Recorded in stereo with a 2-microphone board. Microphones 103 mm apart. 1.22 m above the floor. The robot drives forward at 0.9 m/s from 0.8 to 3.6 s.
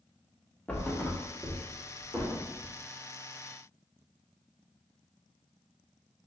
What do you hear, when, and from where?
0.7 s a thud: 15° left (ahead or behind), 0.6 m; by 2.7 s 5° left (ahead or behind), 2.0 m